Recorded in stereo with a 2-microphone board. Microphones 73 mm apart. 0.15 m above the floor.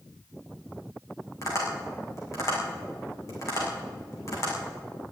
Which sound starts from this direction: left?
Tapping, at 1.4 s.